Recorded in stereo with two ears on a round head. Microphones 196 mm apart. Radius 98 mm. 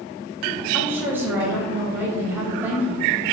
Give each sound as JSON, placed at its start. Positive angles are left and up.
{"t": 0.7, "sound": "a woman speaking", "side_deg": -10, "distance_m": 3.0}